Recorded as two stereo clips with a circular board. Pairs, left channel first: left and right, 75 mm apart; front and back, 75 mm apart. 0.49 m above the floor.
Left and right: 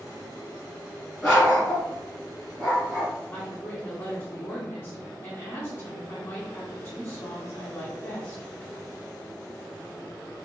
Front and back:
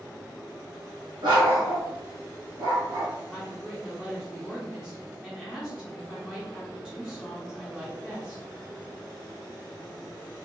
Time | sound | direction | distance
1.2 | a dog barking | 175° left | 1.6 m
3.3 | a woman speaking | 105° left | 1.4 m